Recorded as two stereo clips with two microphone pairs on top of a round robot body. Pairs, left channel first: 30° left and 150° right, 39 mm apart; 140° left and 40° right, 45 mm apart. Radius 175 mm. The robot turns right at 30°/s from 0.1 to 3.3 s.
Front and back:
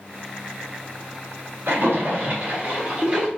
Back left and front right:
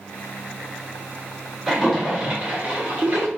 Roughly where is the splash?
Behind right.